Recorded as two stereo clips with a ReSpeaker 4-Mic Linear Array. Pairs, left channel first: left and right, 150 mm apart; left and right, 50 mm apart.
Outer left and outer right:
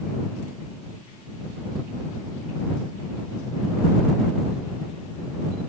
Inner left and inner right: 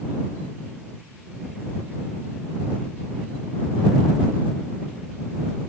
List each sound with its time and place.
Only background noise.